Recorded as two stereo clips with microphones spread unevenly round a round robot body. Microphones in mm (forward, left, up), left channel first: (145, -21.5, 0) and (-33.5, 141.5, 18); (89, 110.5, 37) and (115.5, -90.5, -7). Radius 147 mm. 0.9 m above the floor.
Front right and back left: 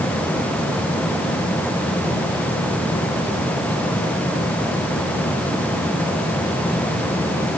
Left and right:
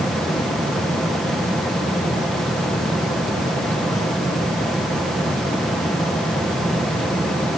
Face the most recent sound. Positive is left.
No sound to turn to.